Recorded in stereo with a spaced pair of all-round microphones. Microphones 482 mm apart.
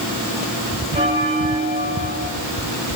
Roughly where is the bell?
Centre.